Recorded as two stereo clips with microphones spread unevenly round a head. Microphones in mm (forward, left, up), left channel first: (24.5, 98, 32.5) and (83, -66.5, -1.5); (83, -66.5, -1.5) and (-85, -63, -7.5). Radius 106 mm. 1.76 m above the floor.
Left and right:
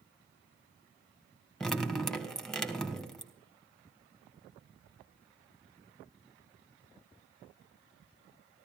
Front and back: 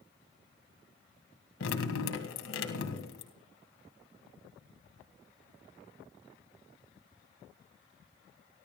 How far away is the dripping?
About 2 m.